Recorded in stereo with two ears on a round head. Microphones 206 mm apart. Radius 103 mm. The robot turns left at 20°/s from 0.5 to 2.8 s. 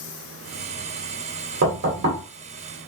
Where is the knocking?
60° right (ahead or behind), 2 m; by 2.2 s 50° right (ahead or behind), 2 m.